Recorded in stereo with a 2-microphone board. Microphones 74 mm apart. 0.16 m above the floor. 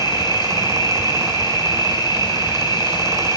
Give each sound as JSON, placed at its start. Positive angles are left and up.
{"t": 0.0, "sound": "an insect", "side_deg": 85, "distance_m": 1.7}